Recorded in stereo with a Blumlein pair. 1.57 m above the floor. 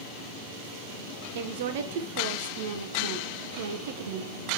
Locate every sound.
1.4 s a woman speaking: 55° right, 1.0 m